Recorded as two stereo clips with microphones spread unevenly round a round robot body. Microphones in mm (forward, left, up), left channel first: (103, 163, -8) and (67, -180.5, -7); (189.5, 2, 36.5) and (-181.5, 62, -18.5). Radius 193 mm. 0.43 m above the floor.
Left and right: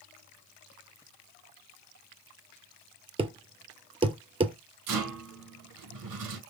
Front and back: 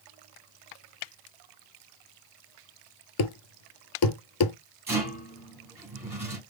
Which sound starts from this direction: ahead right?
A thud, at 3.2 s.